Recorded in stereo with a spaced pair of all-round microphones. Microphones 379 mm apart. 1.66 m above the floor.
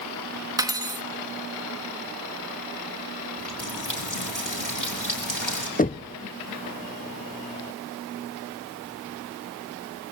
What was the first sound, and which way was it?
Cutlery clinking, 10° right (ahead or behind).